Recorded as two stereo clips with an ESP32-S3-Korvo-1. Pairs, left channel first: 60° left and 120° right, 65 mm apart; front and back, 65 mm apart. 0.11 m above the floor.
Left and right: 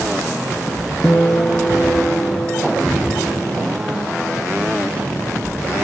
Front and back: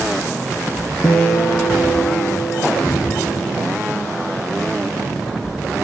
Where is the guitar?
10° left, 0.7 m.